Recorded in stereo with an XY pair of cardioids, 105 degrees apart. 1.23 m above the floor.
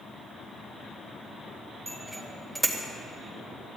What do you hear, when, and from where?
1.9 s a bicycle bell: 10° right, 3.5 m